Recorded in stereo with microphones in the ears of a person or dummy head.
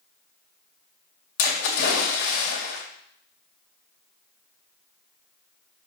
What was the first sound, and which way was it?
A splash, 70° left (ahead or behind).